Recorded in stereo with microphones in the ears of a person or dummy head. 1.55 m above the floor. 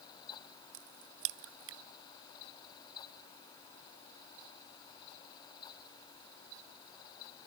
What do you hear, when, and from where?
0.7 s a crack: 65° right (ahead or behind)